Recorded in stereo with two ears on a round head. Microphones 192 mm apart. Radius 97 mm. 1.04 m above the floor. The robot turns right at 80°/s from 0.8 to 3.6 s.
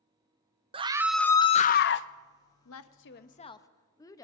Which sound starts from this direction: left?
A woman speaking, at 2.6 s.